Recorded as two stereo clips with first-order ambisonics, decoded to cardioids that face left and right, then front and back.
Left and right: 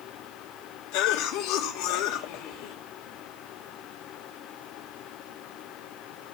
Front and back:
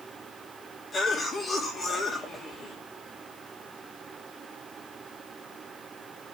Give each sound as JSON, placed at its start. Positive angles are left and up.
{"t": 0.9, "sound": "a cough", "azimuth_deg": 75, "distance_m": 3.5}